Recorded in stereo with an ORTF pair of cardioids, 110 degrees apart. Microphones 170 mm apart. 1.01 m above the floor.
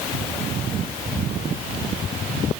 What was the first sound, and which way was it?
Only background noise.